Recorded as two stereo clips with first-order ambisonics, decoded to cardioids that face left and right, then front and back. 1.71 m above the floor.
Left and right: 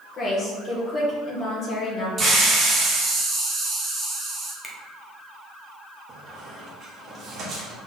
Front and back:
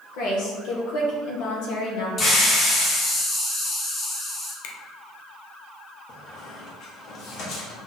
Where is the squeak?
40° right, 1.5 m.